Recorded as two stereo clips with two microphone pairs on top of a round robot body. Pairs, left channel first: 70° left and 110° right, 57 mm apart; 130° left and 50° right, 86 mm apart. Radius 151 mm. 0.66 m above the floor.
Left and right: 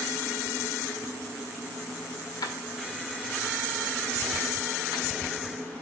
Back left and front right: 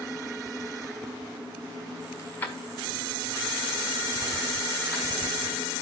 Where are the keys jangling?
65° left, 1.4 m; by 5.2 s 45° left, 4.5 m.